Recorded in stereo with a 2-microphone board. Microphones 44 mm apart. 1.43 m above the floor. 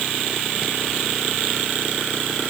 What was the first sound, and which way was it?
Only background noise.